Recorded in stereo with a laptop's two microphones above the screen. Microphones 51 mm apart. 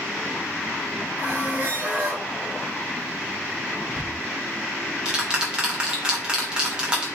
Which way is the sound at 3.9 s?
20° right (ahead or behind).